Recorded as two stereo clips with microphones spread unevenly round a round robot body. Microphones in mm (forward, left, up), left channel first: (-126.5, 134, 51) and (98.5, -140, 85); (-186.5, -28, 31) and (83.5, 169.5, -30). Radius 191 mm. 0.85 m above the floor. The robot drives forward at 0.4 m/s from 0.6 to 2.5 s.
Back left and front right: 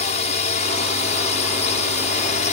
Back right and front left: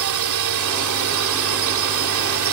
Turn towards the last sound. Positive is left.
turn(degrees=65)